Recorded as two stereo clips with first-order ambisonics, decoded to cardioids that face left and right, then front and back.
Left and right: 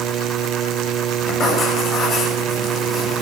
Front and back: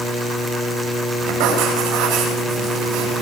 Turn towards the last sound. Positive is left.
turn(degrees=155)